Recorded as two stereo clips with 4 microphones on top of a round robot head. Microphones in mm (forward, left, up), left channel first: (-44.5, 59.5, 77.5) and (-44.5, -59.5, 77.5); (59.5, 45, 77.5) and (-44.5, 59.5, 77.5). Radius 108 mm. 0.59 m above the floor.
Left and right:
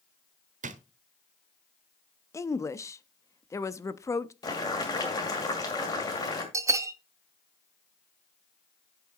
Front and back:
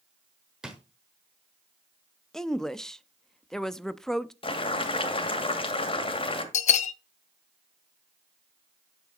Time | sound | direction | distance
0.6 | a drawer | 105° right | 1.0 m
2.3 | a woman speaking | 70° left | 0.7 m
4.4 | boiling | 25° left | 2 m
6.5 | a bell | 20° right | 0.5 m